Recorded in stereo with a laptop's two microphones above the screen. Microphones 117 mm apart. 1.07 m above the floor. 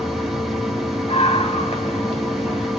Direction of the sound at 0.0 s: Centre (ahead or behind).